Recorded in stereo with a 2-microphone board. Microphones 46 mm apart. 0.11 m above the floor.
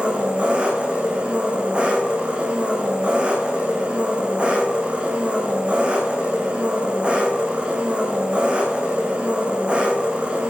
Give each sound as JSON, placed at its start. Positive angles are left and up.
{"t": 0.0, "sound": "an engine running", "side_deg": -25, "distance_m": 3.0}